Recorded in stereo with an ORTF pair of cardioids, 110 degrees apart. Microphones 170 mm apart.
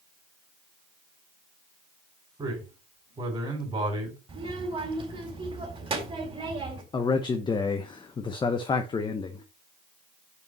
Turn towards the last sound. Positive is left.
turn(degrees=25)